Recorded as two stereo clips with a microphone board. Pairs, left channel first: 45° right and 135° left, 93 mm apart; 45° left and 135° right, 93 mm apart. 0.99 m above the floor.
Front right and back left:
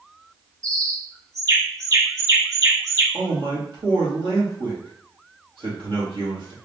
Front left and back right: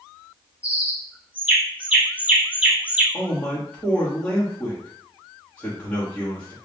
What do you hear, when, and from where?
0.6 s a bird: 160° left, 1.0 m
3.1 s a man speaking: 120° left, 2 m